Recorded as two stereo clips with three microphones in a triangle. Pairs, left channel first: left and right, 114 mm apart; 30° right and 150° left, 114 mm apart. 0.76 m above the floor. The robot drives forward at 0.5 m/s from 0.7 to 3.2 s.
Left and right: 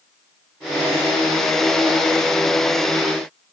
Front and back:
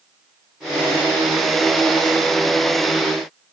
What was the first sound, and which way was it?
Only background noise.